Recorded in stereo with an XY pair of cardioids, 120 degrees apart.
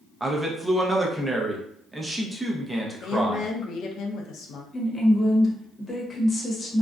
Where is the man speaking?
15° right, 0.6 m.